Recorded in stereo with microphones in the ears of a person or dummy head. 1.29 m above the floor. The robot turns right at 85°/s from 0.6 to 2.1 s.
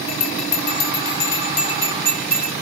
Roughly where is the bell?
Left.